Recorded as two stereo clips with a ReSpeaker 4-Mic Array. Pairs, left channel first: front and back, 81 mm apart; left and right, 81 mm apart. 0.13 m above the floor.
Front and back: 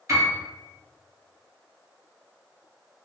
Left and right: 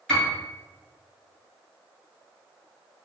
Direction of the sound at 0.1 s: 175° left.